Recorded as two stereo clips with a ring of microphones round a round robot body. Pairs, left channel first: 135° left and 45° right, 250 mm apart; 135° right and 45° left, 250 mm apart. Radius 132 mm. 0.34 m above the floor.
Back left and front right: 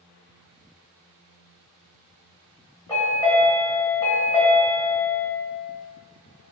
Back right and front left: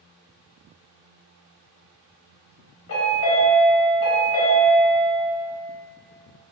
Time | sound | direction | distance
2.9 | a chime | 150° right | 1.3 m